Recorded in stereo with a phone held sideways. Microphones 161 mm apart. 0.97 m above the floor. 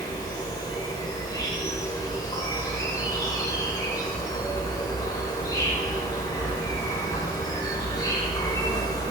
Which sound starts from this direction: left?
An insect, at 0.0 s.